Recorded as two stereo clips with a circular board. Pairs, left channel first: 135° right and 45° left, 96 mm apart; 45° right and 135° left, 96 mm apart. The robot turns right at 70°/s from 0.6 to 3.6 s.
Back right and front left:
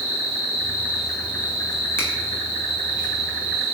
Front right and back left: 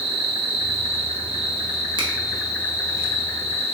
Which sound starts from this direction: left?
An insect, at 0.0 s.